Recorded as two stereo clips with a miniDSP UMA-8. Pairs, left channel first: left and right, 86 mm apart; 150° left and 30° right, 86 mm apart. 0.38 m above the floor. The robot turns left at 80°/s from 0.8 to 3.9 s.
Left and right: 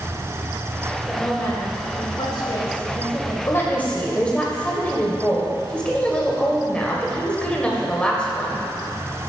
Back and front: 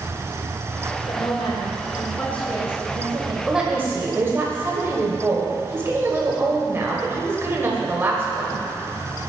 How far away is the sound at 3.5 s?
About 1.9 m.